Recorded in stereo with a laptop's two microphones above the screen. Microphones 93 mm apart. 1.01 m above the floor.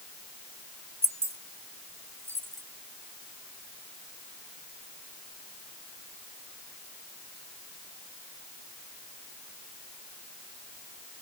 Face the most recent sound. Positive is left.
turn(degrees=-25)  # may be behind; listen again after turning